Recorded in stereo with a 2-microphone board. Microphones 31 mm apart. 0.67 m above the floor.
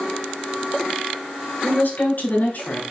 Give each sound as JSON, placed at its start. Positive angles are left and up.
{"t": 1.6, "sound": "a woman speaking", "side_deg": 65, "distance_m": 3.0}